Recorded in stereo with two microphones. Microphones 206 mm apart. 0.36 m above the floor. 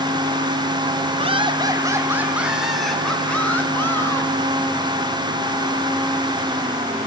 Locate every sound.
1.2 s laughter: 30° right (ahead or behind), 2 m; by 4.3 s 15° left (ahead or behind), 4 m